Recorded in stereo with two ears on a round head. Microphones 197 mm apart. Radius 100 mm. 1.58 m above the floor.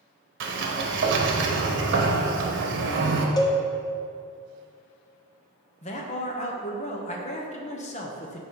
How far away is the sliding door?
About 0.9 m.